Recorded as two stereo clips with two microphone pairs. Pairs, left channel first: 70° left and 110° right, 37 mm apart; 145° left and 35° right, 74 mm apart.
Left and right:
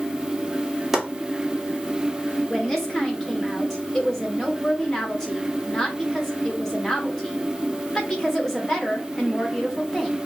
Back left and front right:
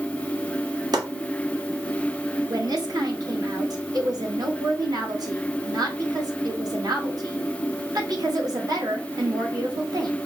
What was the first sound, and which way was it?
Chopping, 25° right.